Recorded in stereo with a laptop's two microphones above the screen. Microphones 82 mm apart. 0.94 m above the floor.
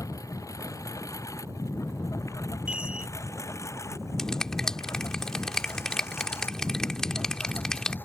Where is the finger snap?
5° left (ahead or behind).